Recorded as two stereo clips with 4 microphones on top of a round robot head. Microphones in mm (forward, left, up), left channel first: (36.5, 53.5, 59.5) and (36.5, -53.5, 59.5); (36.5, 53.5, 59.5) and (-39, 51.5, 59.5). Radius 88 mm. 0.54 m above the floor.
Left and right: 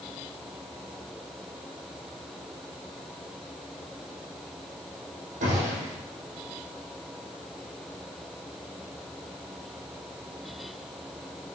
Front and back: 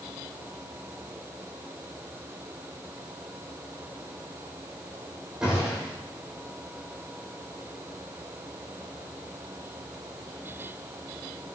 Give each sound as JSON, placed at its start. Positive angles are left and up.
{"t": 5.4, "sound": "a gunshot", "azimuth_deg": -95, "distance_m": 4.0}